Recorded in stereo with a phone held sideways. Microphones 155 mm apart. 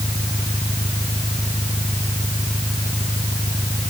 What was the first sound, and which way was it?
An engine running, 30° left (ahead or behind).